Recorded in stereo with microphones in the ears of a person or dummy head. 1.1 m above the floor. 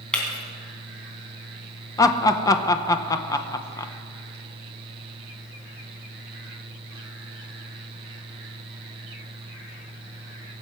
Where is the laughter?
15° left (ahead or behind), 1.0 m.